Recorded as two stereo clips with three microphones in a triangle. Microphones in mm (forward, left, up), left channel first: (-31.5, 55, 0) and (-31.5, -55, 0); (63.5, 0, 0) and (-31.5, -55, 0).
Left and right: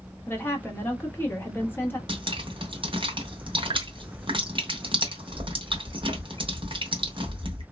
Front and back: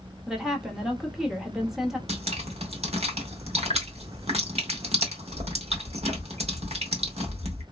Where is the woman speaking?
130° left, 0.8 m.